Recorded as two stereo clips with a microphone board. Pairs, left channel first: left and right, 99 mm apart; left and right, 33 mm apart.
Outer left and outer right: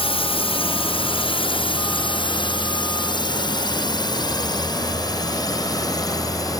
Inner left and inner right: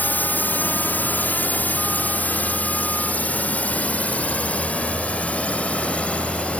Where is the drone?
65° left (ahead or behind); by 6.6 s 35° left (ahead or behind).